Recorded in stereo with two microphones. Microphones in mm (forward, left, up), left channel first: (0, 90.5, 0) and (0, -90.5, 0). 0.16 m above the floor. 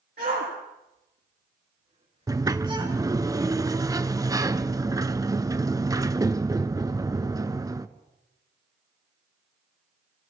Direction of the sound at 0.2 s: 65° right (ahead or behind).